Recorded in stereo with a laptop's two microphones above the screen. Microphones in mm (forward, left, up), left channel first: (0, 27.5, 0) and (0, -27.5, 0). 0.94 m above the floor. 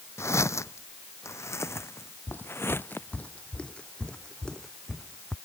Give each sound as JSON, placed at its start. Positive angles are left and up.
{"t": 0.2, "sound": "footsteps", "side_deg": 55}
{"t": 2.3, "sound": "footsteps", "side_deg": 40}